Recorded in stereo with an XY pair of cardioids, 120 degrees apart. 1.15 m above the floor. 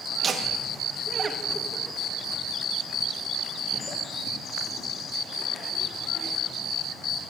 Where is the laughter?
40° right, 2.0 m; by 6.3 s 55° left, 3.5 m.